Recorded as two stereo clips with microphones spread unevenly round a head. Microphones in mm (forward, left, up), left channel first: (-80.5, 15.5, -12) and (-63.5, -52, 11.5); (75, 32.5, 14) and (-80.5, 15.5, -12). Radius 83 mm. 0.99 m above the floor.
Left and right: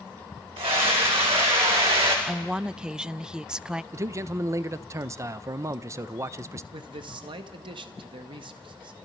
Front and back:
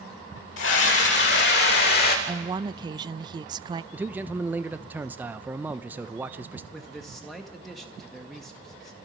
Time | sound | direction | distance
0.6 | a scream | 25° right | 5 m
2.3 | a woman speaking | straight behind | 0.5 m
3.9 | a man speaking | 125° right | 0.7 m
6.7 | a man speaking | 90° right | 1.8 m